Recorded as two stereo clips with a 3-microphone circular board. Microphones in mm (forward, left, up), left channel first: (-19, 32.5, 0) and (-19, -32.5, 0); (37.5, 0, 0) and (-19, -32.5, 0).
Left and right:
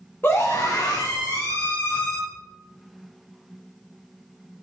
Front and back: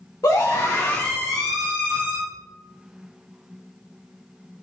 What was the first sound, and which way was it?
A scream, 40° left.